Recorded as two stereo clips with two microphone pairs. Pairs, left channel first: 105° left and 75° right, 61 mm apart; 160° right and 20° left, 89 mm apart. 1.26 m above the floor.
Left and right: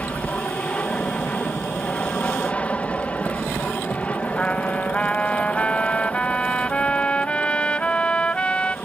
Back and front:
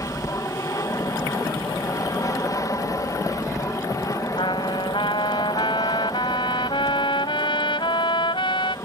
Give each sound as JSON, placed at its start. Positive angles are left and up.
{"t": 0.0, "sound": "an aircraft", "azimuth_deg": 170}
{"t": 4.4, "sound": "a trumpet", "azimuth_deg": 180}